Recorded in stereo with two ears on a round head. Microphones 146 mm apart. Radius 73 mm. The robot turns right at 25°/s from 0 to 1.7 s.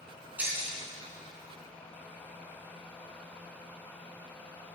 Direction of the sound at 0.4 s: 10° right (ahead or behind).